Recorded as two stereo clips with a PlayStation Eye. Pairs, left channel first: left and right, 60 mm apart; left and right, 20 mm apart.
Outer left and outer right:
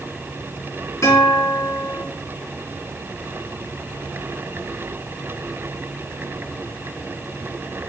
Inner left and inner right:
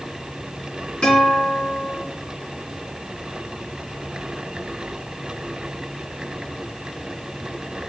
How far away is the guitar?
About 4 m.